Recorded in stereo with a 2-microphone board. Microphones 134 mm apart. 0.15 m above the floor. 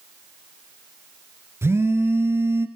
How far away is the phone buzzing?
About 1.6 m.